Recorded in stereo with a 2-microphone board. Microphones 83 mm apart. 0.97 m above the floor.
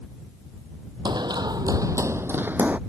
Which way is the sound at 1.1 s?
65° right (ahead or behind).